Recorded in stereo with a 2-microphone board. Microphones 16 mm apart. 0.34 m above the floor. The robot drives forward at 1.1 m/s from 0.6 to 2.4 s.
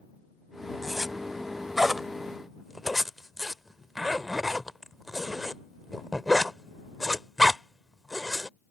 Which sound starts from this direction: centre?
A zipper, at 0.8 s.